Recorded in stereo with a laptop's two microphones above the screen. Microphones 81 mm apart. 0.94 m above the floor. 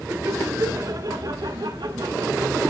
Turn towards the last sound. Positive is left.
turn(degrees=-70)  # may be behind; listen again after turning